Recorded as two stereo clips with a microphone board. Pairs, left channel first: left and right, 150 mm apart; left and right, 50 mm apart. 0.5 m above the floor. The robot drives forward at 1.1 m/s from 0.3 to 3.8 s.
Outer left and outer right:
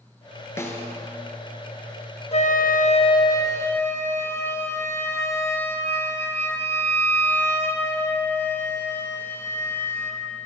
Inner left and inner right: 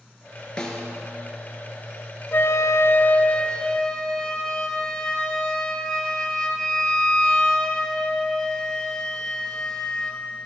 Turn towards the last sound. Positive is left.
turn(degrees=15)  # may be behind; listen again after turning